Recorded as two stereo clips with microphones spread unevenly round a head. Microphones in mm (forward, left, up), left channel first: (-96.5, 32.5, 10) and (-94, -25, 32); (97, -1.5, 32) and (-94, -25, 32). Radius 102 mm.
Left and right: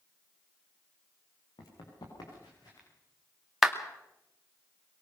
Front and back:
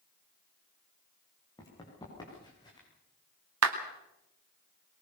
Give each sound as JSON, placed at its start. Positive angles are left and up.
{"t": 1.6, "sound": "running footsteps", "azimuth_deg": 80, "distance_m": 6.0}
{"t": 3.6, "sound": "a clap", "azimuth_deg": -170, "distance_m": 2.5}